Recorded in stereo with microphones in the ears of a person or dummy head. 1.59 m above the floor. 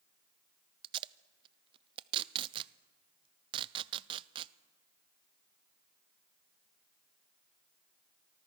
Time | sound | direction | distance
0.8 | tape being pulled | 30° right (ahead or behind) | 0.6 m